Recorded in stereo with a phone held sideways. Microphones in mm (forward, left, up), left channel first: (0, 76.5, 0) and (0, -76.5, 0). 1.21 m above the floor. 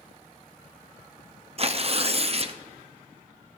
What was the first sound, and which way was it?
Tearing paper, 40° right (ahead or behind).